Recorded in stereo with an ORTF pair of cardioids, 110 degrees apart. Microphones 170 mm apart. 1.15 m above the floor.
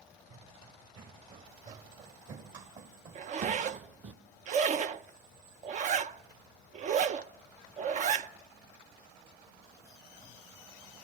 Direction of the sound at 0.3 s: 55° right.